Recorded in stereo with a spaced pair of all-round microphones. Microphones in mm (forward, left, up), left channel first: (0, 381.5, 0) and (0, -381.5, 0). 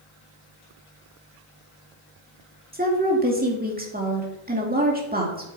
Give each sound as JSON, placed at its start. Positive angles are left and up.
{"t": 2.7, "sound": "a woman speaking", "side_deg": -10, "distance_m": 2.5}